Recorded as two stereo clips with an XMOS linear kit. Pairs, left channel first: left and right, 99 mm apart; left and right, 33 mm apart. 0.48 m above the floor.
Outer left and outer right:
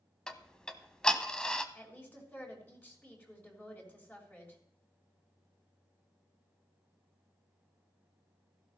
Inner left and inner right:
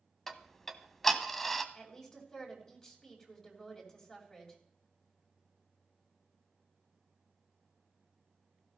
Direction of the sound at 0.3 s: 5° left (ahead or behind).